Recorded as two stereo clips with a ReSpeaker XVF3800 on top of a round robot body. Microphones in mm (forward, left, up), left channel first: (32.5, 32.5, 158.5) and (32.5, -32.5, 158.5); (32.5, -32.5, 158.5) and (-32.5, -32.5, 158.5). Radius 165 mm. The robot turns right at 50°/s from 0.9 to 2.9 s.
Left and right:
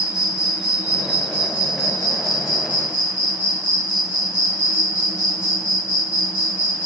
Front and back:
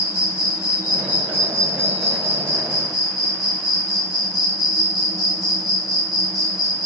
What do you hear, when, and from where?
0.0 s an insect: 130° right, 0.8 m; by 6.9 s 30° right, 0.8 m